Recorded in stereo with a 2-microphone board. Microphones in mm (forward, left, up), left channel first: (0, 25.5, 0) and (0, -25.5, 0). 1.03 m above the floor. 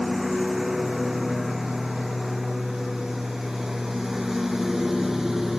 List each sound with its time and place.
0.0 s a lawn mower: 5° right (ahead or behind)